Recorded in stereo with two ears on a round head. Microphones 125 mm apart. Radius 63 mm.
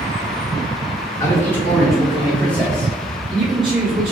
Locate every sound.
1.2 s a man speaking: 20° left (ahead or behind), 1.1 m; by 4.1 s 45° right (ahead or behind), 1.6 m